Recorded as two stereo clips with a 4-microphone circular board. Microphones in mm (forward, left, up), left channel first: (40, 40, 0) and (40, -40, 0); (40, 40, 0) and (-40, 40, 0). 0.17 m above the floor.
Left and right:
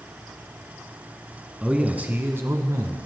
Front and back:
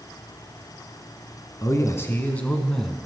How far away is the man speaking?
About 1.3 m.